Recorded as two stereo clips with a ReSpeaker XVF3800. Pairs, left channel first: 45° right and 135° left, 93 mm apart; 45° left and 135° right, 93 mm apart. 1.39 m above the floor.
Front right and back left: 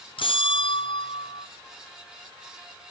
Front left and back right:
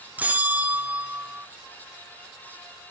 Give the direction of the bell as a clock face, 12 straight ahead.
2 o'clock.